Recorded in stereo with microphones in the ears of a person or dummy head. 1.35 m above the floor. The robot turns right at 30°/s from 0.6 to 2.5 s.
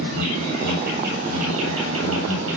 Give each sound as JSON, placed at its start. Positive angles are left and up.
{"t": 0.0, "sound": "an insect", "azimuth_deg": -130, "distance_m": 8.5}